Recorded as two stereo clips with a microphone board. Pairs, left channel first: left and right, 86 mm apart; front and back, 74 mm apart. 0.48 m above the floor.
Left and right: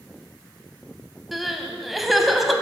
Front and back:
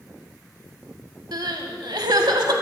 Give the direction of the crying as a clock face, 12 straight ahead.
6 o'clock.